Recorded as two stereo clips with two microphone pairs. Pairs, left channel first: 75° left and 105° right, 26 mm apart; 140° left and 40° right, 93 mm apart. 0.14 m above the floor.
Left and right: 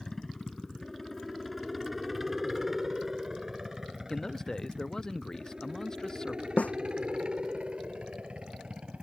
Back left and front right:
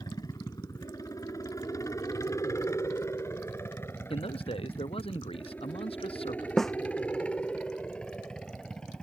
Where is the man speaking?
145° left.